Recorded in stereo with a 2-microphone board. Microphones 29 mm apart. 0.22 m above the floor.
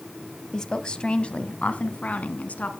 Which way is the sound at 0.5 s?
20° left (ahead or behind).